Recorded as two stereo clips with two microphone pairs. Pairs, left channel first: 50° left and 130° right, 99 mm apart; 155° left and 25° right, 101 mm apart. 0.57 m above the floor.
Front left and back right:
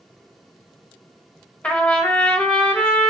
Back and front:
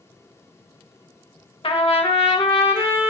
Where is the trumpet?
125° left, 0.5 m.